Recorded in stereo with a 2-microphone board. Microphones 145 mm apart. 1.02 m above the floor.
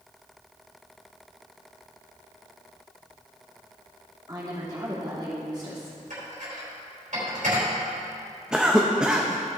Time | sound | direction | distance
4.3 | a woman speaking | 30° right (ahead or behind) | 2 m
6.1 | dishes clattering | 65° right (ahead or behind) | 3 m
8.5 | a cough | 5° right (ahead or behind) | 0.6 m